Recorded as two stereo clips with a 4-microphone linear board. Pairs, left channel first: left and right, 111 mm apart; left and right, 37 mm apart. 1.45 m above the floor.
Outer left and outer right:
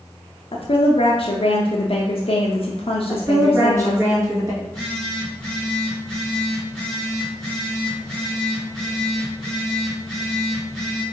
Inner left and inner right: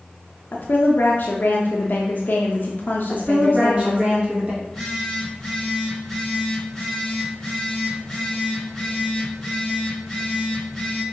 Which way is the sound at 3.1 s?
25° right (ahead or behind).